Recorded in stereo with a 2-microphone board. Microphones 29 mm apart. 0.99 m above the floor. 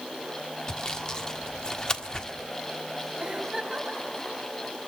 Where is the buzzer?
No buzzer in this recording.